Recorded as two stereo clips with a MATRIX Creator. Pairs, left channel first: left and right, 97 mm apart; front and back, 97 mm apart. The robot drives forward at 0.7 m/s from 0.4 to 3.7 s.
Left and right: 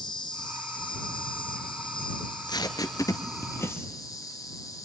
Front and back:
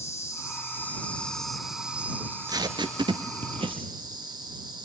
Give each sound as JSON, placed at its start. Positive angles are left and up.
{"t": 0.0, "sound": "an insect", "azimuth_deg": 55, "distance_m": 1.8}
{"t": 2.2, "sound": "tape being pulled", "azimuth_deg": 120, "distance_m": 1.0}